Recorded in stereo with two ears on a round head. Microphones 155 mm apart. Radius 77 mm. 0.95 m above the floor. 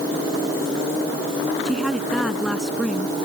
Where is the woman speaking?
Centre (ahead or behind).